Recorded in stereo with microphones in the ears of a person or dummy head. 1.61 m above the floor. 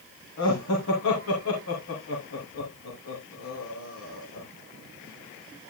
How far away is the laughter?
About 3 m.